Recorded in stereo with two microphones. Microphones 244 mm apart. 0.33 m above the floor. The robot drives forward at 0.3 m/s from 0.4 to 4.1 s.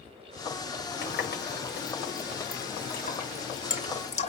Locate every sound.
1.0 s a running tap: 45° left (ahead or behind), 0.9 m; by 4.3 s 30° left (ahead or behind), 1.3 m